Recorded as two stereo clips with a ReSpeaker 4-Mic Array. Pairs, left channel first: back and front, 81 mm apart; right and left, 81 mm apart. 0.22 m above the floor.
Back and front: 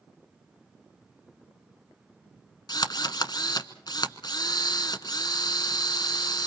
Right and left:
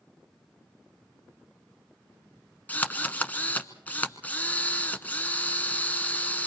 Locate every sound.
2.7 s a drill: 160° right, 1.0 m